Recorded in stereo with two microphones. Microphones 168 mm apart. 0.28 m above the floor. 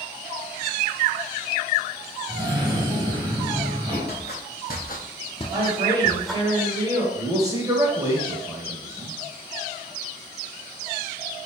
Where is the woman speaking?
25° right (ahead or behind), 1.7 m.